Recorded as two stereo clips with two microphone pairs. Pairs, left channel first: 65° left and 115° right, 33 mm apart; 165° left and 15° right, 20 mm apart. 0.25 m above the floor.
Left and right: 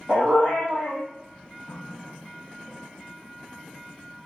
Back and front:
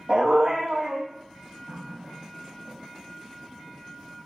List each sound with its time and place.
0.1 s a dog barking: 50° right, 3 m
1.7 s a running tap: 5° right, 4 m